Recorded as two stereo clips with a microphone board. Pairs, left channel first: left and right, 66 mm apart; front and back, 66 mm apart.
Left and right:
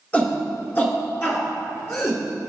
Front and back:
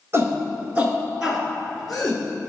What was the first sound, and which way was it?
A shout, 150° left.